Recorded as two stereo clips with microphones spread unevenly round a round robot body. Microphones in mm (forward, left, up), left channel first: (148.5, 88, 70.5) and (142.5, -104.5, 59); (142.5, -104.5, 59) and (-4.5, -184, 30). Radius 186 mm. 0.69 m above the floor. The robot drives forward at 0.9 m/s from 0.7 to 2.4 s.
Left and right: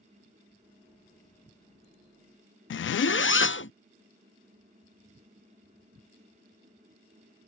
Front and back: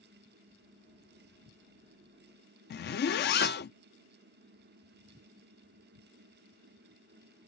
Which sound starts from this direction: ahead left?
A zipper, at 2.7 s.